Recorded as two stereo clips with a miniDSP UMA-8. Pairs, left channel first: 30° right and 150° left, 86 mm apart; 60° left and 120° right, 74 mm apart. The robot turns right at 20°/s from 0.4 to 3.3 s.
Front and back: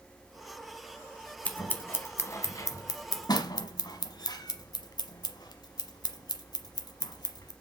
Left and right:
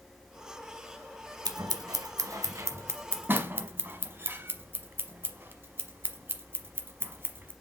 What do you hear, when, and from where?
1.4 s scissors: 100° right, 0.9 m; by 7.5 s 60° right, 0.9 m